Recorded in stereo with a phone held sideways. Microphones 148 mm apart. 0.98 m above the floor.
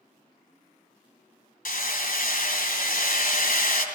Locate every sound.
1.6 s hammering: 70° left (ahead or behind), 2.5 m